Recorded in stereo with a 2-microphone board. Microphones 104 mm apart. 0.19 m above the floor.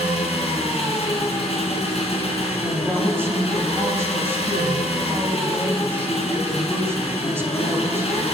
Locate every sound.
0.0 s an engine running: 75° left (ahead or behind), 1.8 m
2.6 s a woman speaking: 25° right (ahead or behind), 1.1 m